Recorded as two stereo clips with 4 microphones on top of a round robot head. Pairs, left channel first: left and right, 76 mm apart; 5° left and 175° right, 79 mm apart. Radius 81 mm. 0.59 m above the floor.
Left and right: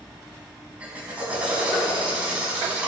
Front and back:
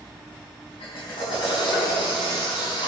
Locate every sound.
0.8 s a drill: 15° right, 4.5 m